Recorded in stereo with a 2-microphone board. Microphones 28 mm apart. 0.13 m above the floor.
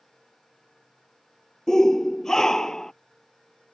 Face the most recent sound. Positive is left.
turn(degrees=20)  # may be behind; listen again after turning